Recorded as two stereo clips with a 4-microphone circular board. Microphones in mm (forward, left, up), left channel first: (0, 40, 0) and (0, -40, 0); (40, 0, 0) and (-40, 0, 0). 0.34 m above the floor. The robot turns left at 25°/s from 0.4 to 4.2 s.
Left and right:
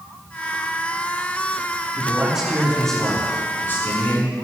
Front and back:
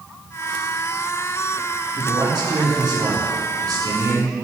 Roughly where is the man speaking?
Behind.